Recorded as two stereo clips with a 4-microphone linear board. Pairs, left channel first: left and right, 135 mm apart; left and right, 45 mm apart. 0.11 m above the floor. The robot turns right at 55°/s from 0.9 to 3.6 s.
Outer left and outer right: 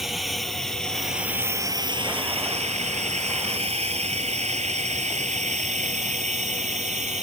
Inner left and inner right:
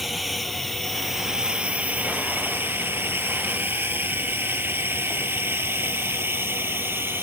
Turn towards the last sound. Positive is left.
turn(degrees=-55)  # may be behind; listen again after turning